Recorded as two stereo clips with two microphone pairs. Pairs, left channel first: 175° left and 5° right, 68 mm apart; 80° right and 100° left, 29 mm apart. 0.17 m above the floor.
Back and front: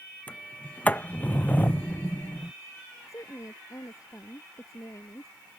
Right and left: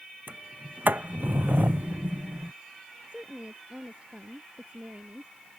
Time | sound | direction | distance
0.3 | a sliding door | 105° left | ?
3.1 | a woman speaking | 145° left | ?